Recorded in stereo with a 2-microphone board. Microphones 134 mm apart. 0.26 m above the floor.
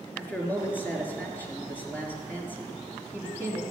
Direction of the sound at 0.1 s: 15° left (ahead or behind).